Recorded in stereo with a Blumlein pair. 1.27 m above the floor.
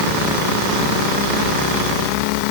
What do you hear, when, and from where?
Only background noise.